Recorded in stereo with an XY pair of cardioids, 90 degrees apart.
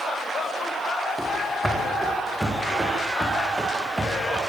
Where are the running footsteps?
5° right, 9 m; by 4.4 s 15° right, 9.5 m.